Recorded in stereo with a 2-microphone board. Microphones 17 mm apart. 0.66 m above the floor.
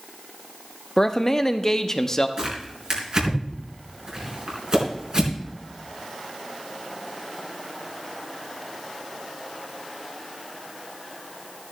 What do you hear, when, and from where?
1.0 s a man speaking: 25° left (ahead or behind), 0.8 m
2.4 s tearing paper: 45° right (ahead or behind), 4 m